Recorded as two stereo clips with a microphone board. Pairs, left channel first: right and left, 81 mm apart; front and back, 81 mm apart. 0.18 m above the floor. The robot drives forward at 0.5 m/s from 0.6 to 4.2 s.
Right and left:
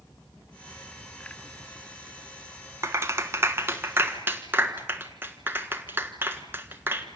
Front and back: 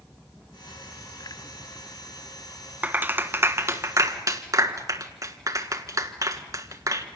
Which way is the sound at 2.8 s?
120° left.